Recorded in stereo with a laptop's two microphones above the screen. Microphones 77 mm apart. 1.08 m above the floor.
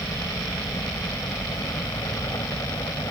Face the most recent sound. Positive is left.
turn(degrees=50)  # may be behind; listen again after turning